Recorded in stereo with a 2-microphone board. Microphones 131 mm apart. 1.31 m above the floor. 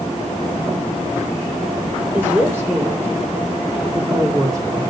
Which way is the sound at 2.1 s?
15° right (ahead or behind).